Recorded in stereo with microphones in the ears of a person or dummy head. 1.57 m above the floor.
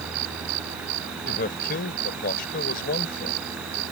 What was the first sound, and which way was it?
A man speaking, 55° left (ahead or behind).